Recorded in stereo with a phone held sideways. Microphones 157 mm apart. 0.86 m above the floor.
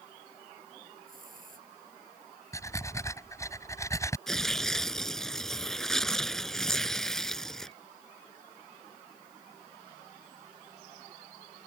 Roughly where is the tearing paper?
Centre.